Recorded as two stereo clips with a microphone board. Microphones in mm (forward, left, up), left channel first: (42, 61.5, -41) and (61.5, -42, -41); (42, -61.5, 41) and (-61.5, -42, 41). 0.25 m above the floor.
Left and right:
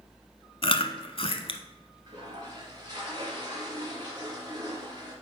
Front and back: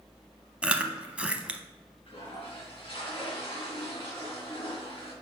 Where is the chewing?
90° left, 0.7 m.